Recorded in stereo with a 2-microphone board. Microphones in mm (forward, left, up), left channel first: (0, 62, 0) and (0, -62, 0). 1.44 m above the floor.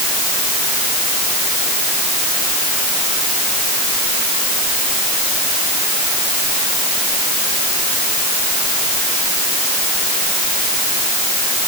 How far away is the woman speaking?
No woman speaking in this recording.